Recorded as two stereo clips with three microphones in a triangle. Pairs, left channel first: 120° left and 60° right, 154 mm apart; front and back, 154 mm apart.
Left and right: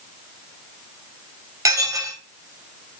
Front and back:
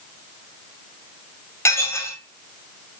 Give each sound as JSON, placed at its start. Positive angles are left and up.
{"t": 1.6, "sound": "dishes clattering", "azimuth_deg": -35, "distance_m": 0.7}